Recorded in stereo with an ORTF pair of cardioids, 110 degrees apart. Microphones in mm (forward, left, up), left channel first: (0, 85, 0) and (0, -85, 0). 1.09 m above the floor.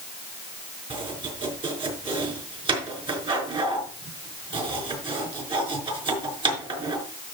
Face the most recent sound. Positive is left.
turn(degrees=-30)